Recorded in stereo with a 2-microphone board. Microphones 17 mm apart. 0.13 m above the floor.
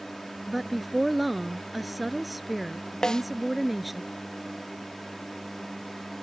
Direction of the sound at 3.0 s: 55° left (ahead or behind).